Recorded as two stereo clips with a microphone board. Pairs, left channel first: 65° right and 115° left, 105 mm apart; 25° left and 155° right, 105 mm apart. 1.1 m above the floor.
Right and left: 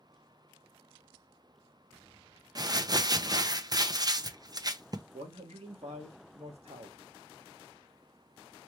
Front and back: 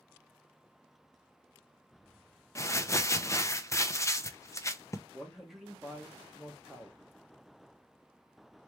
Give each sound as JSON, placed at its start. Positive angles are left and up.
{"t": 2.5, "sound": "crumpling", "azimuth_deg": 75, "distance_m": 0.5}
{"t": 5.1, "sound": "a man speaking", "azimuth_deg": 115, "distance_m": 1.5}